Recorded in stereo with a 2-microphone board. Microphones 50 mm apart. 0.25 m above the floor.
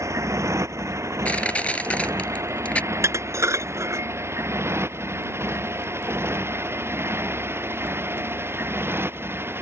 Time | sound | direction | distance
0.0 | a motorcycle | 75° right (ahead or behind) | ?
1.2 | crushing | 25° left (ahead or behind) | ?
2.9 | dishes clattering | 70° right (ahead or behind) | ?